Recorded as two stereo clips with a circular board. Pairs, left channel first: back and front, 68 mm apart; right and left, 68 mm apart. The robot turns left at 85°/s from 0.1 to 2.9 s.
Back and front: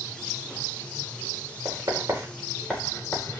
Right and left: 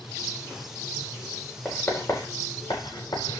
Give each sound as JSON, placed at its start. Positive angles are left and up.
{"t": 1.6, "sound": "writing", "azimuth_deg": -10, "distance_m": 5.0}